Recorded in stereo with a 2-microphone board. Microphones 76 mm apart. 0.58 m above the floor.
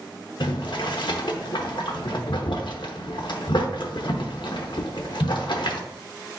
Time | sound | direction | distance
0.4 | boiling | 70° left (ahead or behind) | 0.7 m